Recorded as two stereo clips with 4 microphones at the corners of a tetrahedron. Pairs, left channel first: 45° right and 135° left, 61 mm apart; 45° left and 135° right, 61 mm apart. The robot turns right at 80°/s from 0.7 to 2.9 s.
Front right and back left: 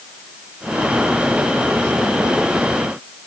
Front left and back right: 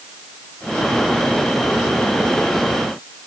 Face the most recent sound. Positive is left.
No sound to turn to.